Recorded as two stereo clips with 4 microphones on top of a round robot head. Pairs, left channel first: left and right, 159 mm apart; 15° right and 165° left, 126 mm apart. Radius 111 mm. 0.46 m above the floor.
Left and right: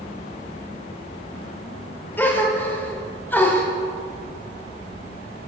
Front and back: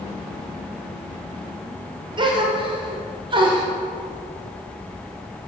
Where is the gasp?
160° left, 1.2 m.